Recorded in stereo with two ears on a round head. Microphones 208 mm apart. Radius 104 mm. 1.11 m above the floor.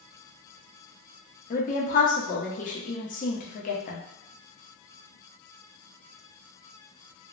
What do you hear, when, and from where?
1.5 s a woman speaking: 35° left (ahead or behind), 0.7 m